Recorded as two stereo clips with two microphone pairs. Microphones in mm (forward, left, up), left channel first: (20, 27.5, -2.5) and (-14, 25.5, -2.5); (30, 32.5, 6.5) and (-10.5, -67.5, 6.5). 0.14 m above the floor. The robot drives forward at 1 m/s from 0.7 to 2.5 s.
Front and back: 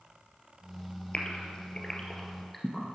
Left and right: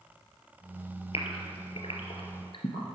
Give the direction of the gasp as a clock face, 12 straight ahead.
10 o'clock.